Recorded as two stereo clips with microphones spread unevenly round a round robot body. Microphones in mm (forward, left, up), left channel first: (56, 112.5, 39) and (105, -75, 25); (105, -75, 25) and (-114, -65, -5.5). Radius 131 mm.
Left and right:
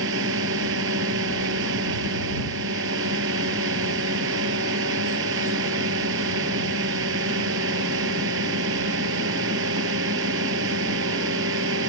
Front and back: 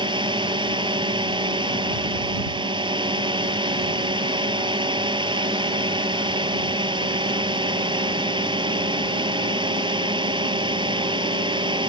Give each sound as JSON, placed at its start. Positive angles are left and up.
{"t": 0.0, "sound": "a drone", "azimuth_deg": -115}